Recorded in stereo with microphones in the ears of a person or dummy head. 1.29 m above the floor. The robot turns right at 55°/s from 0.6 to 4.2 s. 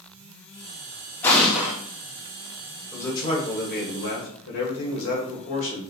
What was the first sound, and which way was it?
An explosion, 20° left (ahead or behind).